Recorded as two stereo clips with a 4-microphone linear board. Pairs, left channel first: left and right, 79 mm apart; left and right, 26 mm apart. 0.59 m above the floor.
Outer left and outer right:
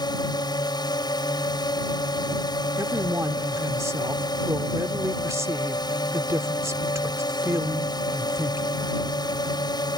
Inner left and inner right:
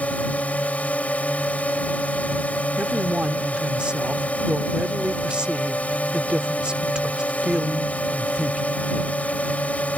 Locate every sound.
0.0 s a drone: 60° left (ahead or behind)
2.8 s a man speaking: 40° right (ahead or behind)